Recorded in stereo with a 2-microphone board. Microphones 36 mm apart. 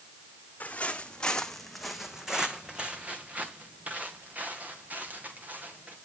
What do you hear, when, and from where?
0.6 s footsteps: 45° left (ahead or behind), 1.6 m; by 6.0 s 55° right (ahead or behind), 4.5 m